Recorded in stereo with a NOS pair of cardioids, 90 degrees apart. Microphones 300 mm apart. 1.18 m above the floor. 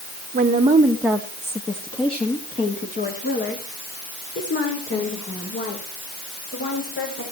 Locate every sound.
0.3 s a woman speaking: 30° right, 1.3 m; by 7.2 s 45° left, 6.5 m